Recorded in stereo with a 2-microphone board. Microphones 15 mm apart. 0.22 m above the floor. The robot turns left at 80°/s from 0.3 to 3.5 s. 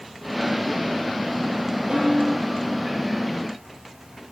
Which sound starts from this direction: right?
A snare drum, at 1.9 s.